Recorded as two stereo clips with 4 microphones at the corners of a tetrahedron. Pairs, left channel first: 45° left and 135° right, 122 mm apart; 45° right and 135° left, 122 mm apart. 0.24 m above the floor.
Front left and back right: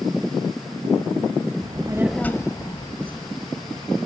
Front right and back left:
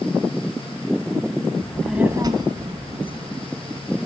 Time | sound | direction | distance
1.6 | a child speaking | 110° right | 0.8 m